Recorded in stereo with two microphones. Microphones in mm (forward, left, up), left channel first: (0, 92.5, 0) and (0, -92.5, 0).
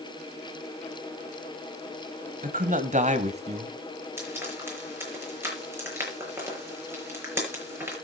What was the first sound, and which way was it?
A man speaking, 50° right (ahead or behind).